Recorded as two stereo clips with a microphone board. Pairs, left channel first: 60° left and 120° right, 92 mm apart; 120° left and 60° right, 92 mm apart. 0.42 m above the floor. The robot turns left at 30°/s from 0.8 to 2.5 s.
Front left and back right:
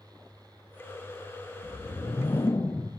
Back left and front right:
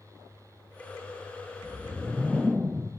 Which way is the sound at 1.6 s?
40° left.